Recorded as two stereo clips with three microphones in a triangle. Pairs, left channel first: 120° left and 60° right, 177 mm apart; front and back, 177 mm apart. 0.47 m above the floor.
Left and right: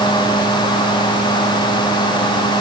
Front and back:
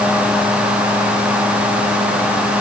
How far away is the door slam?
I don't hear a door slam.